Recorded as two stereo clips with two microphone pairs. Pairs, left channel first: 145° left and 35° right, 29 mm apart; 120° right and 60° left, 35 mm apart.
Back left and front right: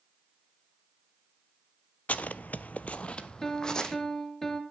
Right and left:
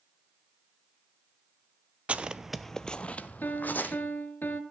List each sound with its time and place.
2.1 s footsteps: 105° left, 0.6 m; by 3.9 s 150° right, 1.1 m
3.4 s a piano: 140° right, 1.2 m